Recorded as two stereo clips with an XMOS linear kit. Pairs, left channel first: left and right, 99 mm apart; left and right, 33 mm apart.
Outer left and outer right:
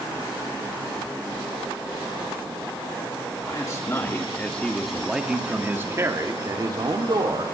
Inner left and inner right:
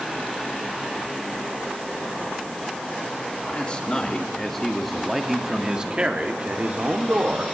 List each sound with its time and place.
3.5 s a man speaking: 35° left (ahead or behind), 2.5 m; by 7.4 s 50° right (ahead or behind), 3.5 m